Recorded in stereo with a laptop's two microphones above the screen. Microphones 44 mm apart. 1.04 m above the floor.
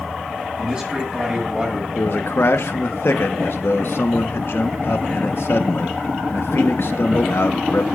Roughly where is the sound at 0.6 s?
Right.